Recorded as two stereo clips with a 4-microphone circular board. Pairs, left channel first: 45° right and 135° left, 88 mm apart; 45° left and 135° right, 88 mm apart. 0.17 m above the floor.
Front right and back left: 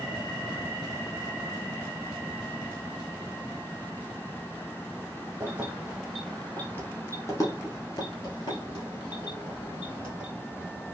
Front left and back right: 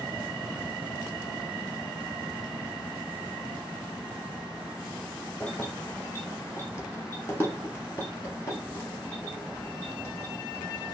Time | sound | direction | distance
5.4 | keys jangling | 110° left | 0.8 m